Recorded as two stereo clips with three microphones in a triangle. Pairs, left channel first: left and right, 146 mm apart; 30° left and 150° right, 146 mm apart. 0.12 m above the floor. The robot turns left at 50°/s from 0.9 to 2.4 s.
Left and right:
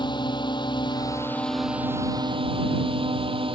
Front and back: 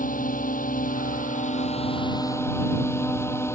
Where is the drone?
35° left; by 3.6 s 40° right.